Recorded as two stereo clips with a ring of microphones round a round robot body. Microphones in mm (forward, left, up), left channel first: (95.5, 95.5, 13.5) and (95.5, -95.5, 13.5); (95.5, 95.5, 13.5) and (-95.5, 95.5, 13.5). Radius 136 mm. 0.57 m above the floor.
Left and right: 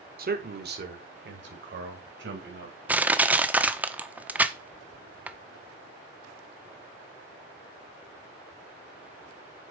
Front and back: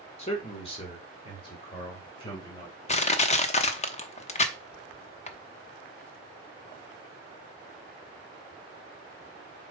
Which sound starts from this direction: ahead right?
A man speaking, at 0.2 s.